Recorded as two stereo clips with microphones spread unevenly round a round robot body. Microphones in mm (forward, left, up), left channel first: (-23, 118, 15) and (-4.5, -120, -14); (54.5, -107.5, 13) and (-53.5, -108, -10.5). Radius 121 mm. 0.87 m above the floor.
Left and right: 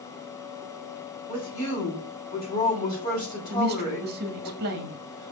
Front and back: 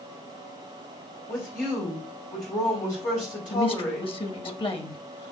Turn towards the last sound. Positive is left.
turn(degrees=-40)